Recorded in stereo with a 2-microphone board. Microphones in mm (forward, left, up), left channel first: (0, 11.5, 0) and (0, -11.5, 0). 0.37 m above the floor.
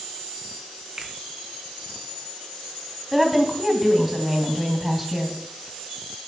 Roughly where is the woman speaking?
Centre.